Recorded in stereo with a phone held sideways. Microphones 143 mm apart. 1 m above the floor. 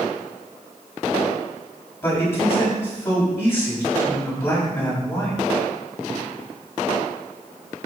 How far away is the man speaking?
About 7 m.